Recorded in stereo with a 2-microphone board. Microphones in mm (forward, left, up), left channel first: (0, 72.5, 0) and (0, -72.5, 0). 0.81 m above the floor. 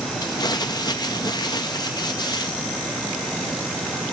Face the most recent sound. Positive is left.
turn(degrees=30)  # may be behind; listen again after turning